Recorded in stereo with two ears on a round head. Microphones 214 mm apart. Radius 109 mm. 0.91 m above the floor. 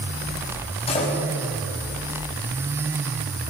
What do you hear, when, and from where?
0.9 s a door slam: 25° left (ahead or behind), 5.5 m